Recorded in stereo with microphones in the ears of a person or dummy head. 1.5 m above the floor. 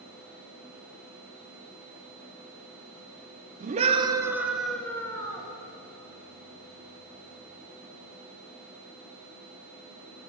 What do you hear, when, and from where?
3.6 s a scream: 40° right (ahead or behind), 0.9 m; by 5.5 s 25° left (ahead or behind), 1.4 m